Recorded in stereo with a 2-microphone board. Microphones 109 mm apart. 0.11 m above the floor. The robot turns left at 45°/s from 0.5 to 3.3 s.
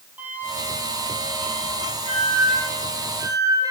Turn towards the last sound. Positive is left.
turn(degrees=-145)